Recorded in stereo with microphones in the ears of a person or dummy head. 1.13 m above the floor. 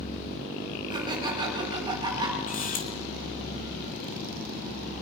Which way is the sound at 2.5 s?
45° left (ahead or behind).